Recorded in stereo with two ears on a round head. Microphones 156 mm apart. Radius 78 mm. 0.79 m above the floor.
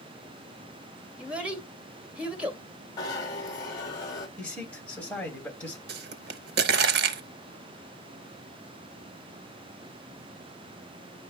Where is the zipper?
25° left (ahead or behind), 1.8 m.